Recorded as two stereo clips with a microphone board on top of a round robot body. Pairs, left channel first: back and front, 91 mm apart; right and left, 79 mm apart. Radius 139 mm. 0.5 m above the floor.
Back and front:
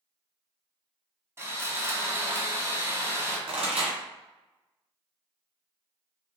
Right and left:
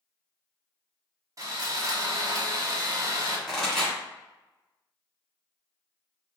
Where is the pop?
5° right, 1.7 m.